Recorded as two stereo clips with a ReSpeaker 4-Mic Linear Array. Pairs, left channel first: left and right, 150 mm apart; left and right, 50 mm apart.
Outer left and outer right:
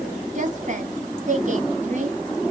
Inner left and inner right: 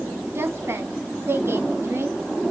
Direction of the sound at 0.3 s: 55° right (ahead or behind).